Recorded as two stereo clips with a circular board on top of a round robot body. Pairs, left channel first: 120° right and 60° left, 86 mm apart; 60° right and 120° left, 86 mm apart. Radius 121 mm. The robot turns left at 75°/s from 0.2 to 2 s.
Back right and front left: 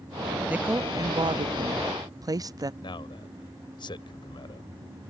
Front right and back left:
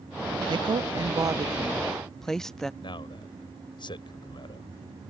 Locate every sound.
0.5 s a woman speaking: 135° left; by 2.7 s 25° left
2.8 s a man speaking: 90° right